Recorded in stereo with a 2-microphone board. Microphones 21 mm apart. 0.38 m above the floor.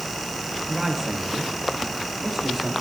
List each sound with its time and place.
0.7 s a man speaking: 25° right (ahead or behind), 6.5 m; by 2.7 s 15° right (ahead or behind), 7.5 m